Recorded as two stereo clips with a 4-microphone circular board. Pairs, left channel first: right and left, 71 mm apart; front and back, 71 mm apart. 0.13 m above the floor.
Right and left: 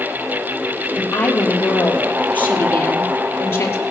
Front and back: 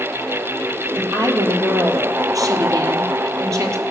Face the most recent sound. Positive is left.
turn(degrees=-140)